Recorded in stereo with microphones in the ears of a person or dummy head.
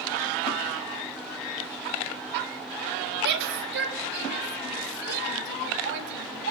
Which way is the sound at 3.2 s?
55° right (ahead or behind).